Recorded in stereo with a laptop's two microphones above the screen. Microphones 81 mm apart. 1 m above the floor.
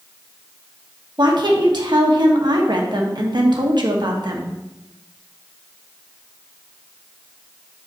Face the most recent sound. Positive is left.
turn(degrees=-65)  # may be behind; listen again after turning